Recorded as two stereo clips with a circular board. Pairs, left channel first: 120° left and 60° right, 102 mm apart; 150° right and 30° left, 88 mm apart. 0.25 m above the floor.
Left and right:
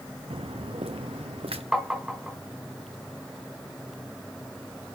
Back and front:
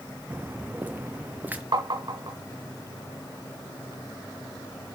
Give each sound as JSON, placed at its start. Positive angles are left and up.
{"t": 0.3, "sound": "footsteps", "azimuth_deg": -40, "distance_m": 1.1}
{"t": 1.7, "sound": "tapping", "azimuth_deg": 25, "distance_m": 2.5}